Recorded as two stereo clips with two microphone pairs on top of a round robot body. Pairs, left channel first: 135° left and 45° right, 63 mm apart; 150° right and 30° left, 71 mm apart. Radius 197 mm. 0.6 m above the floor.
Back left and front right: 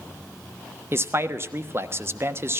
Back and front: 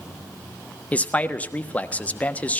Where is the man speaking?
85° right, 1.4 m.